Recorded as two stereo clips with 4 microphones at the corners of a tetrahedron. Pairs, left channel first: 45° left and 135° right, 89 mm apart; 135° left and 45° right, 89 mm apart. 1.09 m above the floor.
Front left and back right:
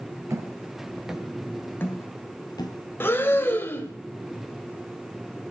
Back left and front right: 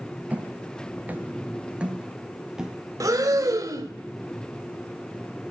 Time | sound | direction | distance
0.3 | footsteps | 110° right | 1.3 m
3.0 | breathing | 10° right | 1.1 m